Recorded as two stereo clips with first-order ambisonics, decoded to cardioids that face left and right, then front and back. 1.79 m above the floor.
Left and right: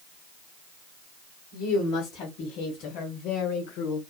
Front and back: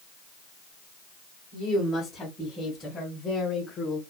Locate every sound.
1.5 s a woman speaking: 75° left, 2 m; by 4.0 s 65° left, 0.9 m